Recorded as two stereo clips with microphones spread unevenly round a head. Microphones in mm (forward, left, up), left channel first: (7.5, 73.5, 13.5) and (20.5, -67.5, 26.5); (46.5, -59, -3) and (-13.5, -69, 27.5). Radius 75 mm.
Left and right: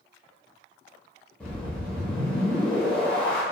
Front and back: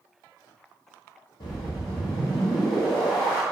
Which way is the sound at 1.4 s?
15° left.